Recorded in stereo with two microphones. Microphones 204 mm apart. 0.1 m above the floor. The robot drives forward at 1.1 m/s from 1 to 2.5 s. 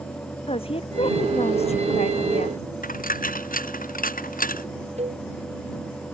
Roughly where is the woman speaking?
Left.